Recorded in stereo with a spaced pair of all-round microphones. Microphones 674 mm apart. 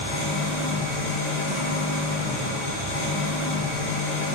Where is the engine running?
65° left (ahead or behind), 3 m.